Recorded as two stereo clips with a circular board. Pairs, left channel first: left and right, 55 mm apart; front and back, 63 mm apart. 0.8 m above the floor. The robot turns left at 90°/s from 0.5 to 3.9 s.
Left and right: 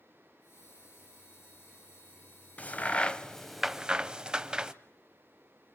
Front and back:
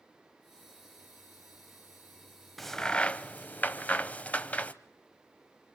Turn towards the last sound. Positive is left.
turn(degrees=-30)